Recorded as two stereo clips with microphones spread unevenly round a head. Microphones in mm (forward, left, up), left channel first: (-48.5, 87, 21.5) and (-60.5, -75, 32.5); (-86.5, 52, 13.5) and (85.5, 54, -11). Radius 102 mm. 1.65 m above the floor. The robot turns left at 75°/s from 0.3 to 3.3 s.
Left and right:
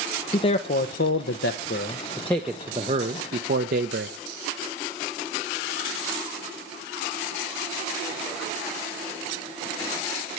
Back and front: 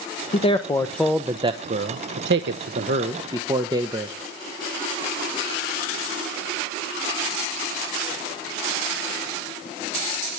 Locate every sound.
0.3 s a man speaking: 150° left, 0.9 m; by 4.2 s 75° right, 0.9 m